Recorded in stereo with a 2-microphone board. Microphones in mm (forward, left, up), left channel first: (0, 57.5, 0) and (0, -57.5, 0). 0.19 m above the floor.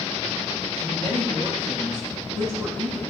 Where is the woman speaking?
Centre (ahead or behind), 4.5 m; by 3.1 s 10° left (ahead or behind), 6 m.